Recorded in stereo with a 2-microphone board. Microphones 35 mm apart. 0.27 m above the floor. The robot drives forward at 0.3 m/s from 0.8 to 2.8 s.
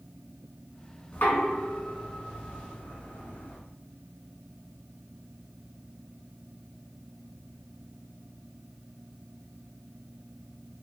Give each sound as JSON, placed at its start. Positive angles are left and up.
{"t": 1.1, "sound": "knocking", "side_deg": 60, "distance_m": 2.5}